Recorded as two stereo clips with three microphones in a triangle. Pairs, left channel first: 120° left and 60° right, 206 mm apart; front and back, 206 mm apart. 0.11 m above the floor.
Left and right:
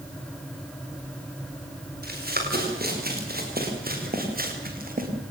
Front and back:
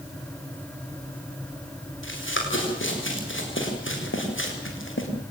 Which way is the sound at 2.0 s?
20° right.